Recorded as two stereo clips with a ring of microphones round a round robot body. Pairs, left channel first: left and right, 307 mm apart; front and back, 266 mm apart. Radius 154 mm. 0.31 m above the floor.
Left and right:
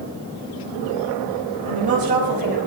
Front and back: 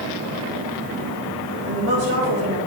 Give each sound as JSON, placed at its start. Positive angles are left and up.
{"t": 1.7, "sound": "a woman speaking", "azimuth_deg": -150, "distance_m": 2.0}